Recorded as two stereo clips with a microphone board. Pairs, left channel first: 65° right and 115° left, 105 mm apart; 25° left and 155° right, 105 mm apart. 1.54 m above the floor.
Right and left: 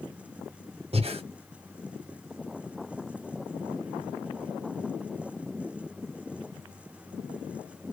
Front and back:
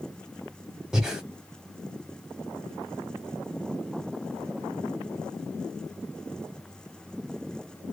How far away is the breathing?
About 0.9 m.